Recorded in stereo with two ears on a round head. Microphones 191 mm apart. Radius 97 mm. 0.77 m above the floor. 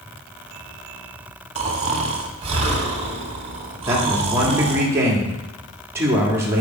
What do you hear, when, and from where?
1.6 s snoring: 30° right (ahead or behind), 1.3 m
3.9 s a man speaking: 10° right (ahead or behind), 1.9 m